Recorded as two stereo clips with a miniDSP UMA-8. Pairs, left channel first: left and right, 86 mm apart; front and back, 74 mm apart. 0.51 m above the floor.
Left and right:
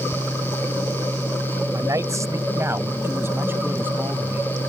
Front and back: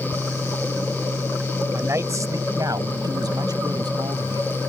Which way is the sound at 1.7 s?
130° right.